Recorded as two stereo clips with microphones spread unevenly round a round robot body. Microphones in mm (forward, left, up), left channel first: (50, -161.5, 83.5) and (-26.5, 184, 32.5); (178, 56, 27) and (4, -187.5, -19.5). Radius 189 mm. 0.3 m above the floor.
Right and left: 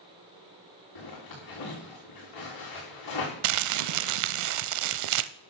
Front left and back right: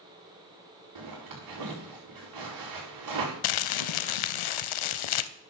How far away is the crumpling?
About 0.5 m.